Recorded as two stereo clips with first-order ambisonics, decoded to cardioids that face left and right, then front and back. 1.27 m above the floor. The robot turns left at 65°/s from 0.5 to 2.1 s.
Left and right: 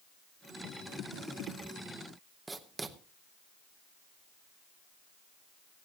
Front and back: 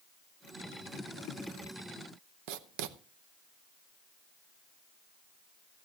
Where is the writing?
170° right, 0.7 m.